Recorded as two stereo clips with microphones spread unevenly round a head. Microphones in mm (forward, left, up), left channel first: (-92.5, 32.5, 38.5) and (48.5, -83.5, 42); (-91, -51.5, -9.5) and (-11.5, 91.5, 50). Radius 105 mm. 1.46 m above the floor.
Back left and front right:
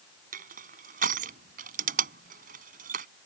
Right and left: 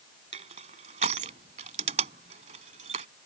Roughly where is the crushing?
Ahead.